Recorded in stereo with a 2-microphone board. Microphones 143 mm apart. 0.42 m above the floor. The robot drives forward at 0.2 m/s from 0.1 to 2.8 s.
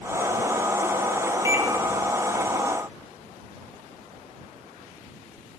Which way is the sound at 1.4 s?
20° right (ahead or behind).